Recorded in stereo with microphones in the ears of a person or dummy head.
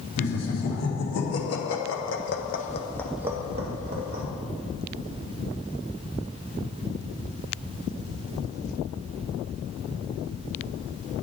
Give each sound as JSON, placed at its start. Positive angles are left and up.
{"t": 0.2, "sound": "laughter", "side_deg": 75, "distance_m": 2.0}